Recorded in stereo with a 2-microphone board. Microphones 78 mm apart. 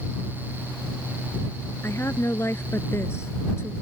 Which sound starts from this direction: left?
A woman speaking, at 1.8 s.